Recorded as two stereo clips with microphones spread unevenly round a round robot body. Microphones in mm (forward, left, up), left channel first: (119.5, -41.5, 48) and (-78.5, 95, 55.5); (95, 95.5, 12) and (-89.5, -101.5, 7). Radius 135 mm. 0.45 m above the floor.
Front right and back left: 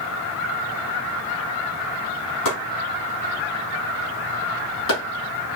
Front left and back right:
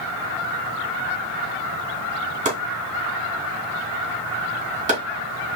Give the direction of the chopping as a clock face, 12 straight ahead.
2 o'clock.